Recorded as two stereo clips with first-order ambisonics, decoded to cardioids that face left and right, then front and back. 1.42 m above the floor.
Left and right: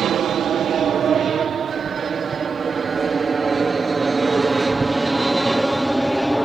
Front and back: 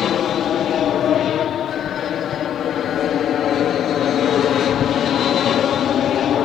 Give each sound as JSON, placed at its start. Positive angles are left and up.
{"t": 0.0, "sound": "an aircraft", "azimuth_deg": -45}